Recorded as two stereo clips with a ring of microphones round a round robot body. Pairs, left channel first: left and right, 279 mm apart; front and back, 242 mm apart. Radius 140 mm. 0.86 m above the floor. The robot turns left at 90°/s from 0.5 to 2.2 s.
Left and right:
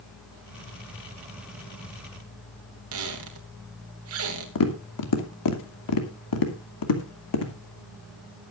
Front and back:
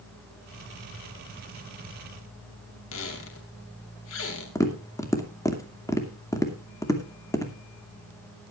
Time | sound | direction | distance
2.9 | a squeak | 50° right | 2.5 m
4.5 | tapping | 75° left | 2.5 m